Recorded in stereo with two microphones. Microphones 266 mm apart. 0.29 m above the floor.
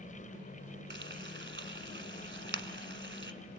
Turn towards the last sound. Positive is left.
turn(degrees=-45)  # may be behind; listen again after turning